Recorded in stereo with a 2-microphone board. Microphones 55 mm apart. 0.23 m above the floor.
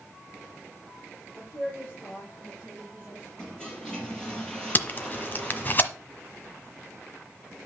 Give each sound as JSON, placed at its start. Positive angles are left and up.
{"t": 1.3, "sound": "a woman speaking", "side_deg": 30, "distance_m": 5.5}
{"t": 3.4, "sound": "a toilet flushing", "side_deg": 15, "distance_m": 4.0}
{"t": 4.8, "sound": "tape being pulled", "side_deg": 35, "distance_m": 1.1}